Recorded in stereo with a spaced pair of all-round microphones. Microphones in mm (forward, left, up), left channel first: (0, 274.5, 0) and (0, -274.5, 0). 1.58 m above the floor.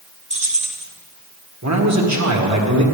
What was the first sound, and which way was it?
Keys jangling, 10° right (ahead or behind).